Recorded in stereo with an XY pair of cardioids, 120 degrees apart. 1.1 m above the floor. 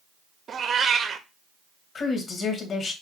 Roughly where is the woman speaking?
Ahead left.